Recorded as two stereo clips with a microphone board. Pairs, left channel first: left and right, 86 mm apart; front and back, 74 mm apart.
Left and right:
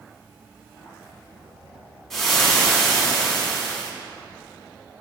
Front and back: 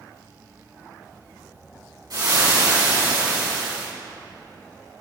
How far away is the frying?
About 3.5 m.